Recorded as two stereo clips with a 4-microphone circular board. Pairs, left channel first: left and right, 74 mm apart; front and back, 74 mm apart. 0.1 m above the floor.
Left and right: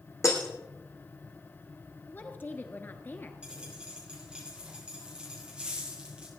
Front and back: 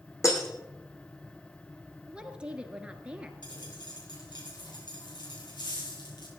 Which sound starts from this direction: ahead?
A dropped coin, at 3.4 s.